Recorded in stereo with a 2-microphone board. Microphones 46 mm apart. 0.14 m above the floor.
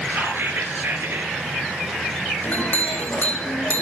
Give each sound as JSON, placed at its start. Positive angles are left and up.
{"t": 0.1, "sound": "whispering", "side_deg": -55, "distance_m": 2.0}
{"t": 2.4, "sound": "a clink", "side_deg": 40, "distance_m": 4.5}